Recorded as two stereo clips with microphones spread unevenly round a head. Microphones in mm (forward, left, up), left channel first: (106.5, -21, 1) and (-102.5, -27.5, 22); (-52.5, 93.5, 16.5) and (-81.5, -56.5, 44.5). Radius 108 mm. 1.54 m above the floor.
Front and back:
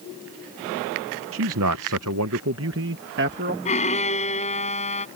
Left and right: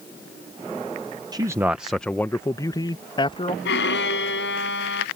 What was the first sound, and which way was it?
A man speaking, 160° right.